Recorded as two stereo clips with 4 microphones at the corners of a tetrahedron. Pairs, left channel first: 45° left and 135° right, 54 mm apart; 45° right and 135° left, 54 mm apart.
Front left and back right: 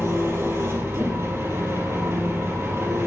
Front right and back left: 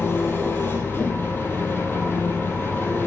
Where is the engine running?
95° right, 4 m.